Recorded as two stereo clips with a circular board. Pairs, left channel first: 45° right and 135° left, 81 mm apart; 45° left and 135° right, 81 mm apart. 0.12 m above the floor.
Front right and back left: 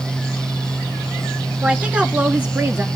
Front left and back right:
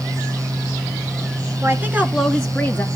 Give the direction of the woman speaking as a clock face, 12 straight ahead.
5 o'clock.